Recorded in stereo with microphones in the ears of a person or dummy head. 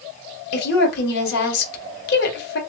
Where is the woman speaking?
55° left (ahead or behind), 1.1 m.